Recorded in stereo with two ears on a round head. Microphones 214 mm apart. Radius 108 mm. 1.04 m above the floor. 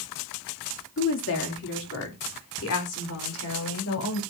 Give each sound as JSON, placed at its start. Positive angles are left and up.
{"t": 1.0, "sound": "a woman speaking", "side_deg": 55, "distance_m": 2.5}